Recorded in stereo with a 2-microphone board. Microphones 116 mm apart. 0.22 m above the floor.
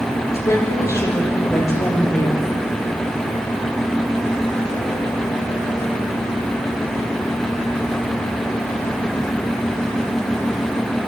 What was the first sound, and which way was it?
A woman speaking, 25° left (ahead or behind).